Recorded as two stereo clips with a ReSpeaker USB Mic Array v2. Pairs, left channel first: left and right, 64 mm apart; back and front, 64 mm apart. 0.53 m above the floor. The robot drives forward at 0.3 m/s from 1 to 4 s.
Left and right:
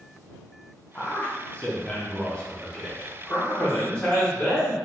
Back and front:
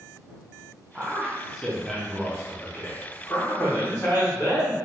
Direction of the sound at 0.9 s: 50° left.